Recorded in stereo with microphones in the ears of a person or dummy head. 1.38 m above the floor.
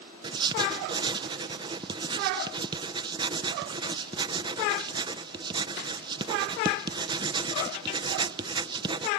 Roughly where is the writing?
Right.